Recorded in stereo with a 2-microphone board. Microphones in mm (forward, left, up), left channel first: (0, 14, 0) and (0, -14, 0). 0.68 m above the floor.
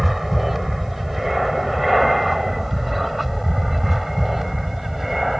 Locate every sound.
0.0 s an aircraft: 5° right (ahead or behind)